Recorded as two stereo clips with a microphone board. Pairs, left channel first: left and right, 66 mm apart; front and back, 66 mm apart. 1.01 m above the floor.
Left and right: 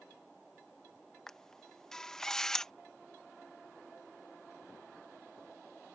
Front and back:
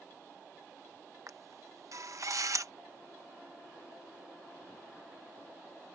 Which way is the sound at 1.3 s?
170° left.